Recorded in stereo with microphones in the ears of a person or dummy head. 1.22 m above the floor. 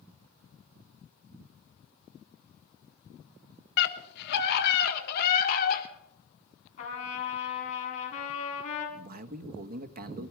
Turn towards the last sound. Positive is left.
turn(degrees=-45)  # may be behind; listen again after turning